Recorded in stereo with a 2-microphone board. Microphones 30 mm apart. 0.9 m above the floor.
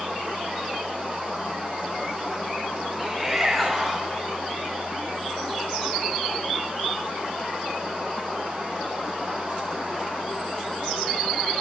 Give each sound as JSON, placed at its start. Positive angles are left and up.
{"t": 3.0, "sound": "a shout", "side_deg": 0, "distance_m": 3.5}